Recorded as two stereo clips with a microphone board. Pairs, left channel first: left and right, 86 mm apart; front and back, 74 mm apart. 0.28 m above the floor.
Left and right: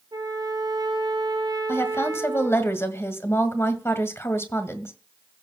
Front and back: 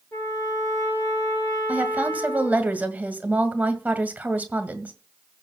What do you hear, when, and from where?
0.1 s a trumpet: 50° right, 4 m
1.7 s a woman speaking: 125° left, 1.8 m